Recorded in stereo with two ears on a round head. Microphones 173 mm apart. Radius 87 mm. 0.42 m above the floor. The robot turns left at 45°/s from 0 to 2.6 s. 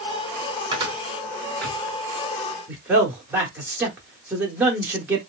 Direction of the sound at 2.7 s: 10° right (ahead or behind).